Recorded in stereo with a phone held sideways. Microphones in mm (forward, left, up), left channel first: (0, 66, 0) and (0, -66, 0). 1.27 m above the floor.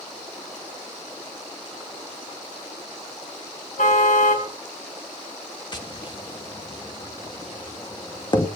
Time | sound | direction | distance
3.8 | a car horn | 75° left (ahead or behind) | 4.5 m
5.7 | tapping | 35° left (ahead or behind) | 2 m